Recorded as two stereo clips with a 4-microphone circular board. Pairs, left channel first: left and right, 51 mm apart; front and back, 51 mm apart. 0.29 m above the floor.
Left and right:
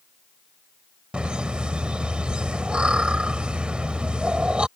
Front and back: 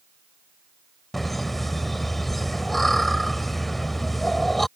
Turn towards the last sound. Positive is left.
turn(degrees=-80)